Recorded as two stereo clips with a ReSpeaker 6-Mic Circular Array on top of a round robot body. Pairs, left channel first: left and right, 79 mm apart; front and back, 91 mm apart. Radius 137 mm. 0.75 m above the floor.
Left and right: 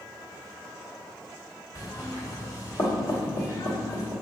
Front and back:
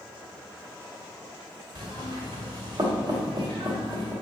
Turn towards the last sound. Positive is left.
turn(degrees=135)